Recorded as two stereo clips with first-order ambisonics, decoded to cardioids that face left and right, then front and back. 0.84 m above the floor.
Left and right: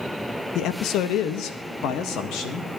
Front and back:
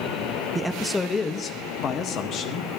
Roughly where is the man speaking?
Left.